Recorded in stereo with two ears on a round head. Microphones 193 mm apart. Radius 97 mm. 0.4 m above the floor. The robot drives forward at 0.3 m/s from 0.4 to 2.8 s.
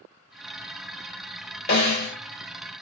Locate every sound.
1.7 s a snare drum: 50° left (ahead or behind), 1.5 m